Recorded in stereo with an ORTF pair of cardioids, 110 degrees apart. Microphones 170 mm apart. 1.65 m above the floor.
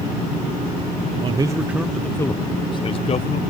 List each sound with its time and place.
1.2 s a man speaking: 30° right; by 3.4 s 40° left